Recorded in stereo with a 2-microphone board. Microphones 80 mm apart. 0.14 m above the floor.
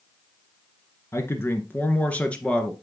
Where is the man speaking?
35° left (ahead or behind), 1.6 m; by 2.7 s 10° left (ahead or behind), 2.0 m.